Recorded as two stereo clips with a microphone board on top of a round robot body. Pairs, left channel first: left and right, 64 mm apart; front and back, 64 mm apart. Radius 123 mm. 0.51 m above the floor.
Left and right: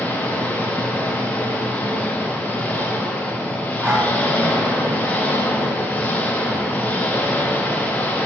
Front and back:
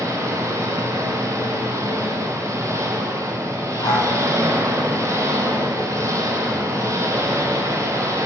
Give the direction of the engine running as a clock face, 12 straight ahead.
7 o'clock.